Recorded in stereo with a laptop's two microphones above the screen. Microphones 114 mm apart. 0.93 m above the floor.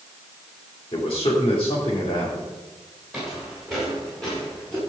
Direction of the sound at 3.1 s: Centre (ahead or behind).